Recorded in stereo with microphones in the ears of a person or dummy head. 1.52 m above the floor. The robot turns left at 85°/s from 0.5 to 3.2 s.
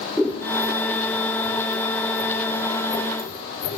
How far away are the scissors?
About 0.7 m.